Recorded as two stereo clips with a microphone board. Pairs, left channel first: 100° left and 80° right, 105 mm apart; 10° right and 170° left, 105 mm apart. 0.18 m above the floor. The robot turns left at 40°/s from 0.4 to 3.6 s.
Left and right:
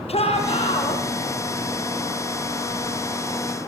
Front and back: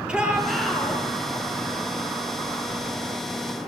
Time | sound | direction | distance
0.1 | a shout | 90° left | 6 m